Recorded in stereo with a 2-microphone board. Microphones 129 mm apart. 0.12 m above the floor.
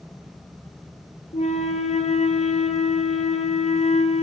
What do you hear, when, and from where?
1.3 s a flute: 60° left (ahead or behind), 1.7 m